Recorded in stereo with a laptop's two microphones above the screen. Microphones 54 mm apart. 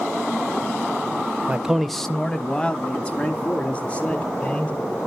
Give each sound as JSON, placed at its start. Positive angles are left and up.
{"t": 1.5, "sound": "a man speaking", "side_deg": -20, "distance_m": 0.7}